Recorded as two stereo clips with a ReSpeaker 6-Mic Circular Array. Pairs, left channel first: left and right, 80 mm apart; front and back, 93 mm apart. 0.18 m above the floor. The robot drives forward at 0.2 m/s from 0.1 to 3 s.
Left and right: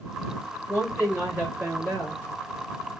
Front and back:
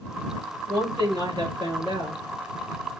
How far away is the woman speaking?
About 3 m.